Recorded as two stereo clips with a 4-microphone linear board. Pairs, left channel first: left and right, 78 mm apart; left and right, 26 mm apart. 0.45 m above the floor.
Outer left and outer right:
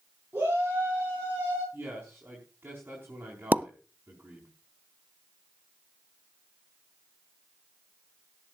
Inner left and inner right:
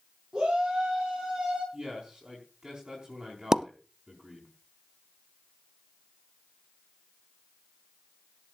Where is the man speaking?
25° right (ahead or behind), 4.5 m.